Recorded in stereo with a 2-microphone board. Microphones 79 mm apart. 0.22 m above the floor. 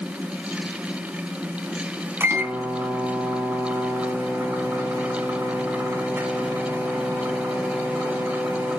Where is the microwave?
30° right (ahead or behind), 1.8 m.